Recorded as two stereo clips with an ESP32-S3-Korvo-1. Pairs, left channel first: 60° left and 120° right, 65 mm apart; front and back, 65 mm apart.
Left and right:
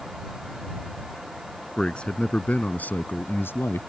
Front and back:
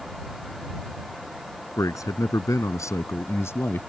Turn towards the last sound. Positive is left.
turn(degrees=40)